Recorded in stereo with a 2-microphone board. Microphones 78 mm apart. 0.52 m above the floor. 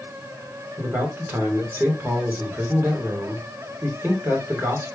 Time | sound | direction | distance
0.8 | a man speaking | 30° right (ahead or behind) | 1.6 m